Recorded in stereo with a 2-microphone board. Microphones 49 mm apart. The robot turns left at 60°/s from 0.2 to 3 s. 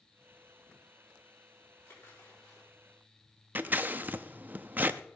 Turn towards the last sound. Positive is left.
turn(degrees=-35)  # may be behind; listen again after turning